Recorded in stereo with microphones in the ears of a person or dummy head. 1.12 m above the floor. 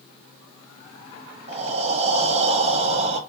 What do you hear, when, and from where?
1.5 s breathing: 35° right (ahead or behind), 0.5 m